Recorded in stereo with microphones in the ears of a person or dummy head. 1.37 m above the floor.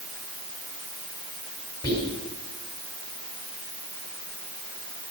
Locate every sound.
1.8 s whispering: 25° left (ahead or behind), 5 m